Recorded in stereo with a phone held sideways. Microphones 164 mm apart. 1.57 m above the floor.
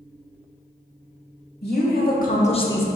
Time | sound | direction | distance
1.6 | a woman speaking | 80° left | 1.4 m